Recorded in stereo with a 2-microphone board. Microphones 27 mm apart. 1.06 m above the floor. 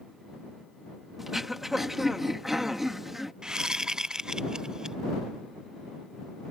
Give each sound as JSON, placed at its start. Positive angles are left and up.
{"t": 1.2, "sound": "throat clearing", "side_deg": -15}
{"t": 3.4, "sound": "a whoosh", "side_deg": -20}